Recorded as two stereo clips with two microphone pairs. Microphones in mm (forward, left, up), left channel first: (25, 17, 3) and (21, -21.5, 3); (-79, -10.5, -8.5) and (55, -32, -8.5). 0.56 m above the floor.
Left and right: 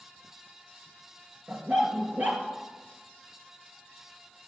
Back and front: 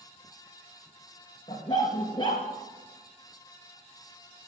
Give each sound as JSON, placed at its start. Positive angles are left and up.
{"t": 1.5, "sound": "a dog barking", "azimuth_deg": -130, "distance_m": 2.5}